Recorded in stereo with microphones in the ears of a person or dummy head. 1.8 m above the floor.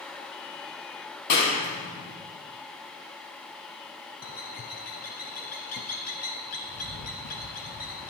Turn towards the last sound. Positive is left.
turn(degrees=45)  # may be behind; listen again after turning